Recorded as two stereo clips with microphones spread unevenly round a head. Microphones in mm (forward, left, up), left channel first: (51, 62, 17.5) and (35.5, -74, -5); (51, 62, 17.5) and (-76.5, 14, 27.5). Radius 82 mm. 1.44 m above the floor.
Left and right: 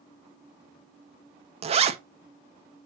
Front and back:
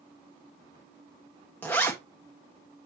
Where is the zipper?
60° right, 0.9 m.